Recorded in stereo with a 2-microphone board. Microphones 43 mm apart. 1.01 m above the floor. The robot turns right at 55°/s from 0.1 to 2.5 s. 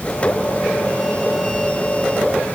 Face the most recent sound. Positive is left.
No sound to turn to.